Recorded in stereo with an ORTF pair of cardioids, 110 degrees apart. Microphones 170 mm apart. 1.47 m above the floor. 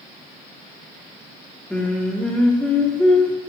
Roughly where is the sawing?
No sawing in this recording.